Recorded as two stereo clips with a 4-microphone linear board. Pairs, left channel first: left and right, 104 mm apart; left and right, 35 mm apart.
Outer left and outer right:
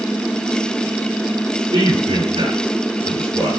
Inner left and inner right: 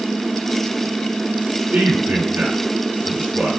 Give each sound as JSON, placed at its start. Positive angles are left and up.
{"t": 1.7, "sound": "a man speaking", "side_deg": -65, "distance_m": 7.5}